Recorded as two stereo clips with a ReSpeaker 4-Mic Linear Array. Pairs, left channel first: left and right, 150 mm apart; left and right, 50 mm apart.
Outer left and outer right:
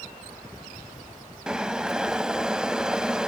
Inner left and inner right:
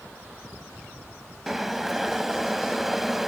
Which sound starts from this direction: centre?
Boiling, at 1.5 s.